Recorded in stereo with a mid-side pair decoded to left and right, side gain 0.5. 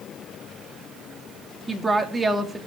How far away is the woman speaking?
About 2.5 m.